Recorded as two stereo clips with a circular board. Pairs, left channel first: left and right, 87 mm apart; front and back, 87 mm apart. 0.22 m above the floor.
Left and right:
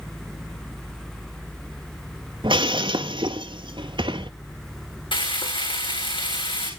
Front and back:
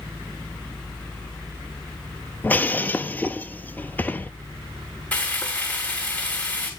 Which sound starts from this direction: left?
Frying, at 5.1 s.